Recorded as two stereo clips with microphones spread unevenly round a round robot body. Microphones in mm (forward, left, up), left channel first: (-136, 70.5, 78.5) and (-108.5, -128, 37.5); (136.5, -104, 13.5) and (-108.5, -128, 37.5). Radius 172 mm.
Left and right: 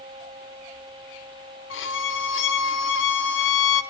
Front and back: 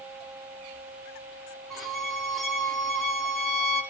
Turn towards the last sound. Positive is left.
turn(degrees=90)